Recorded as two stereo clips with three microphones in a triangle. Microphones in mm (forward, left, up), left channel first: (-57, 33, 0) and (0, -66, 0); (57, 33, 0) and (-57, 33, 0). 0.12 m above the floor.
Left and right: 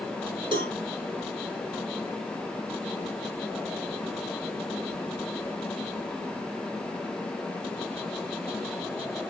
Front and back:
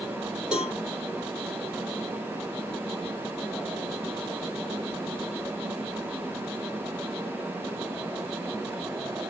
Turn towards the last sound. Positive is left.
turn(degrees=-100)